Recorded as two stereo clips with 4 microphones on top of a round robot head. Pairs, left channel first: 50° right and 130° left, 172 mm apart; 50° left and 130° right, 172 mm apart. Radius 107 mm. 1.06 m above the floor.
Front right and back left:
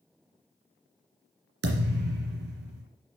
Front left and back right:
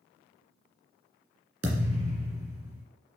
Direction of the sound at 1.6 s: 155° left.